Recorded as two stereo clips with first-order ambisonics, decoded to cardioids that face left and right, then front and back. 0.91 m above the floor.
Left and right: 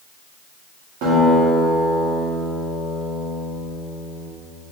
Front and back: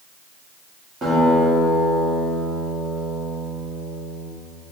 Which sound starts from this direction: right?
A guitar, at 1.0 s.